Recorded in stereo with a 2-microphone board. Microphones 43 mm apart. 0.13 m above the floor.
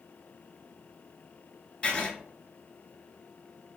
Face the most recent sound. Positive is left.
turn(degrees=25)  # may be behind; listen again after turning